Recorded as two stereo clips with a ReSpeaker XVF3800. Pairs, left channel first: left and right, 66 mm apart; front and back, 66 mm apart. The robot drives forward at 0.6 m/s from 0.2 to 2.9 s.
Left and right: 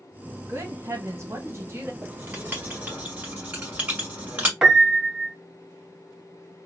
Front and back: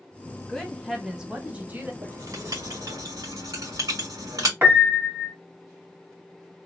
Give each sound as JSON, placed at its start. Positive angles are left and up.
{"t": 0.5, "sound": "a woman speaking", "azimuth_deg": -75, "distance_m": 1.2}
{"t": 2.0, "sound": "writing", "azimuth_deg": -150, "distance_m": 1.6}
{"t": 4.6, "sound": "a piano", "azimuth_deg": -155, "distance_m": 0.8}